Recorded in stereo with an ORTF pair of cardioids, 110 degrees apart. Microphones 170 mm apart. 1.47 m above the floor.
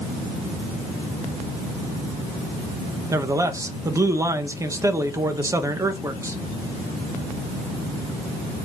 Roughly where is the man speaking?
Ahead.